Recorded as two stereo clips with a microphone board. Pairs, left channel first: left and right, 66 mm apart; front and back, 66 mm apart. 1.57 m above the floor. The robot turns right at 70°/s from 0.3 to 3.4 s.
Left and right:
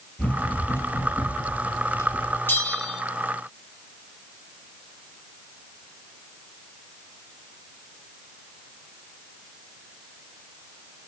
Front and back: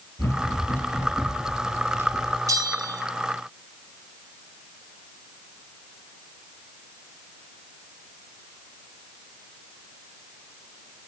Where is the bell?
150° left, 2.5 m; by 3.0 s 175° right, 2.5 m.